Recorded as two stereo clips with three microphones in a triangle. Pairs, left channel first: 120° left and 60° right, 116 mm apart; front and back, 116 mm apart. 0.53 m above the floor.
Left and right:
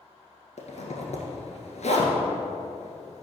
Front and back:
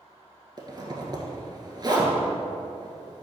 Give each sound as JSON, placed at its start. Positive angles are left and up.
{"t": 0.6, "sound": "a zipper", "azimuth_deg": 125, "distance_m": 1.4}